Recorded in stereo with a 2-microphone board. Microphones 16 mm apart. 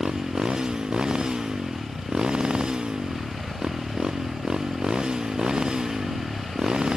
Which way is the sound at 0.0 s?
55° right (ahead or behind).